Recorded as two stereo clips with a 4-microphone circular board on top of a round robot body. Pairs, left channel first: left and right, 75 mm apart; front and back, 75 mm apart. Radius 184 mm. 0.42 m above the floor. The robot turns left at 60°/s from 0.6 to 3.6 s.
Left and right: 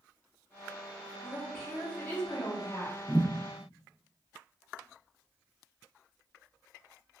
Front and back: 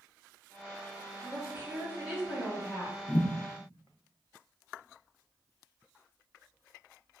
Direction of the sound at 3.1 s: 10° left.